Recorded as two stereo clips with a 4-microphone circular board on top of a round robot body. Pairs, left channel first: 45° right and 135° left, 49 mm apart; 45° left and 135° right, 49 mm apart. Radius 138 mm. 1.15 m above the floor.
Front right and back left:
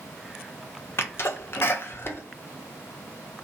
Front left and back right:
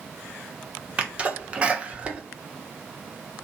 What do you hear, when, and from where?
1.0 s a sneeze: 75° right, 0.9 m